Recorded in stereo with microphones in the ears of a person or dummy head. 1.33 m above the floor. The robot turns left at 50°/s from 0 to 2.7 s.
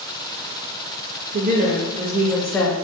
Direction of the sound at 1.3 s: 130° right.